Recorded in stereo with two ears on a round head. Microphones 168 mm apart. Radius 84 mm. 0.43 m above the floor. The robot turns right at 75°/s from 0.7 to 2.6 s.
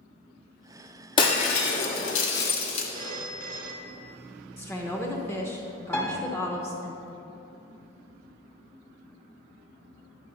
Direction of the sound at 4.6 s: 15° left (ahead or behind).